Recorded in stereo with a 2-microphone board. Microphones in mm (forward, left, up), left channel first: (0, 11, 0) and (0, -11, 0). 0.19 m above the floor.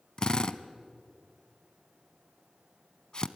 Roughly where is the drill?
Left.